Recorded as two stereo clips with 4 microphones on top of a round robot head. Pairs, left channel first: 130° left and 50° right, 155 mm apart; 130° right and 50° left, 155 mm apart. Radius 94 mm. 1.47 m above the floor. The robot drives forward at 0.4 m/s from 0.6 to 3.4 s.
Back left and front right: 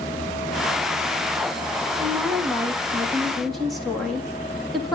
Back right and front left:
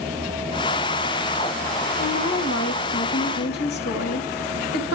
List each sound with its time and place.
2.0 s a woman speaking: 135° right, 2 m; by 5.0 s 140° right, 2.5 m